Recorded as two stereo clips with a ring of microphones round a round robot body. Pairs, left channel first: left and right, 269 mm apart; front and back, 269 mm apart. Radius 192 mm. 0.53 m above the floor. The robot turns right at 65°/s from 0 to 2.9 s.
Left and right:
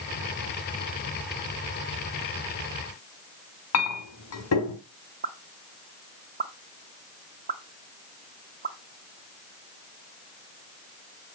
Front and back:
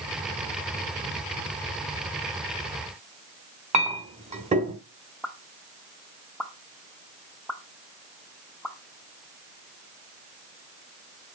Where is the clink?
115° left, 2.5 m.